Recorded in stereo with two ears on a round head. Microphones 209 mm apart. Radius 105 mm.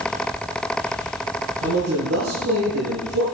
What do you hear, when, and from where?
1.6 s a man speaking: 70° right (ahead or behind), 5 m; by 3.2 s 55° right (ahead or behind), 5 m